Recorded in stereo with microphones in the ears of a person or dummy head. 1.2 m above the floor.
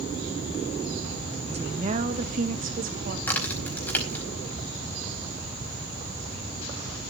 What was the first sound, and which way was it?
A woman speaking, 30° right (ahead or behind).